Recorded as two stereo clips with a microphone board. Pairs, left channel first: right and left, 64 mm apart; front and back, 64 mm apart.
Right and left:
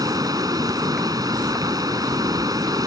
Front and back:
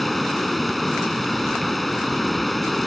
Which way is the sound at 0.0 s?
85° left.